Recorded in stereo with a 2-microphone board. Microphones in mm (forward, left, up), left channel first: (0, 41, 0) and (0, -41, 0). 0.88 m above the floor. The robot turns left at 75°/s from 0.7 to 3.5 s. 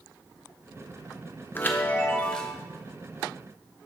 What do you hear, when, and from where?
1.6 s a chime: 25° left (ahead or behind), 0.6 m; by 2.5 s 5° left (ahead or behind), 0.6 m